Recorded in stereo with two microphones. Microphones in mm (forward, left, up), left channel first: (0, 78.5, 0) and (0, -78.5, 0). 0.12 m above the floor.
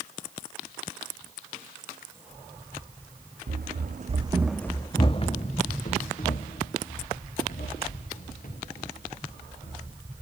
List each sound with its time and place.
3.5 s running footsteps: 80° right, 0.9 m; by 9.9 s 65° left (ahead or behind), 5 m